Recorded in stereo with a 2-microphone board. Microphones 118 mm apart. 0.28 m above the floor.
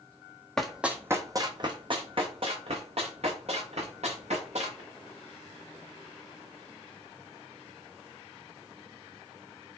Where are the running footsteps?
5° left (ahead or behind), 0.7 m; by 4.8 s 70° right (ahead or behind), 2.5 m.